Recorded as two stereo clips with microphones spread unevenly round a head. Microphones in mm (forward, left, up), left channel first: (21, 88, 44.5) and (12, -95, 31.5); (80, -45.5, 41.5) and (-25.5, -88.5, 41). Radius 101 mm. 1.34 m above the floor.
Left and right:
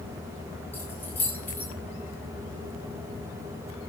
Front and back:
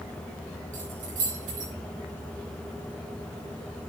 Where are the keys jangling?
170° left, 10 m.